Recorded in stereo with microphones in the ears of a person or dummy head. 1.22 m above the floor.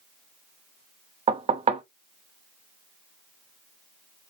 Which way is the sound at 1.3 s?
40° right (ahead or behind).